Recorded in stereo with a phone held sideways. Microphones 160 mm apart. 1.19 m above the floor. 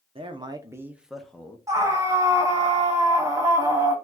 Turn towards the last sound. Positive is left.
turn(degrees=-20)  # may be behind; listen again after turning